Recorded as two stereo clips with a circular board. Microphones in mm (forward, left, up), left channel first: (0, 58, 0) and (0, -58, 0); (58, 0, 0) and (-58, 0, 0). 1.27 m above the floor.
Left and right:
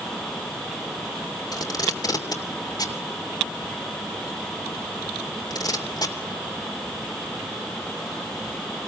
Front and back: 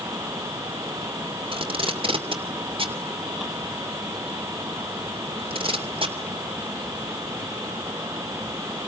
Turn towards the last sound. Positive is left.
turn(degrees=145)